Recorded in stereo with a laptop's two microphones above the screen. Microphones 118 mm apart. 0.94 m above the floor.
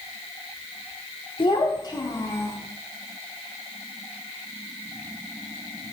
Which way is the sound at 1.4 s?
50° left (ahead or behind).